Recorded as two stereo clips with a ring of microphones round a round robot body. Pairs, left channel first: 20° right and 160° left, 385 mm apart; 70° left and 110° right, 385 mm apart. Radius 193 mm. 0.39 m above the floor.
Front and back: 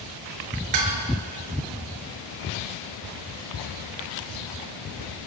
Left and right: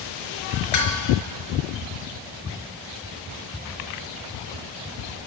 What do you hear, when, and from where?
0.7 s dishes clattering: 115° left, 4 m